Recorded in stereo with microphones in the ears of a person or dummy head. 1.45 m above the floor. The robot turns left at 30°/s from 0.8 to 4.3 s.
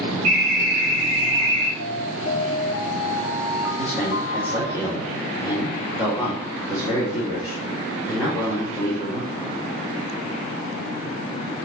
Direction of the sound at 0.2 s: 75° right (ahead or behind).